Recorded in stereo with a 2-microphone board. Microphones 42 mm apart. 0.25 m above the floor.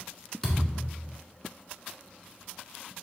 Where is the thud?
15° left (ahead or behind), 1.3 m.